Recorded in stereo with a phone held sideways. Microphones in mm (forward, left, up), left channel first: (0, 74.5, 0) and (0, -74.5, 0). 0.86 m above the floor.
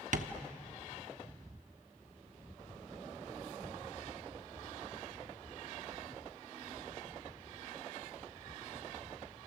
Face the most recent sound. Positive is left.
turn(degrees=-60)  # may be behind; listen again after turning